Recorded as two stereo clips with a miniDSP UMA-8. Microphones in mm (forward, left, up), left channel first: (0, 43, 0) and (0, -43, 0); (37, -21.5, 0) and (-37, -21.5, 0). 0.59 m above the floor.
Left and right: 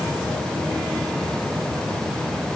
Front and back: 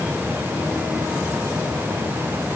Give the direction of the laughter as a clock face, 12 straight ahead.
No laughter in this recording.